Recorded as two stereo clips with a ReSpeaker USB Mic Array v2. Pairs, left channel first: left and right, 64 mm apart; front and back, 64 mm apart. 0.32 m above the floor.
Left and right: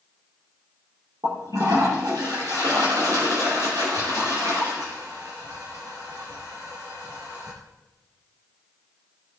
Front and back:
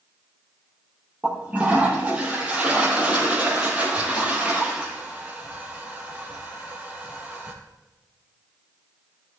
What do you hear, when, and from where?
1.2 s a toilet flushing: 110° right, 6.5 m